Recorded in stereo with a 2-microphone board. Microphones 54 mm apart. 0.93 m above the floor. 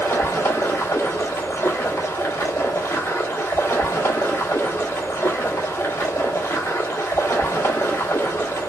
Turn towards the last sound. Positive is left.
turn(degrees=65)  # may be behind; listen again after turning